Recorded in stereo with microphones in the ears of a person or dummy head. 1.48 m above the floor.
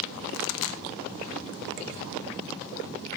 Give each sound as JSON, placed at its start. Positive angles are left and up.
{"t": 0.3, "sound": "a pop", "side_deg": 75, "distance_m": 0.6}